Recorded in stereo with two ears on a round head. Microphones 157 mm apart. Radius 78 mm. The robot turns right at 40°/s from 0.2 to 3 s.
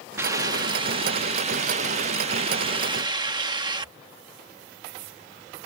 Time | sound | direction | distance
0.2 | a hiss | 155° right | ?